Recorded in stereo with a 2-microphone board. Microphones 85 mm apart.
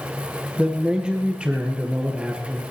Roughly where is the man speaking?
Centre.